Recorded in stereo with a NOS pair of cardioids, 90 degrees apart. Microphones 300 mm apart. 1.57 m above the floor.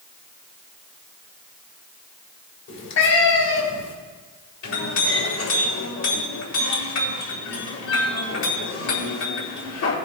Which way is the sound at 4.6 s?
70° left.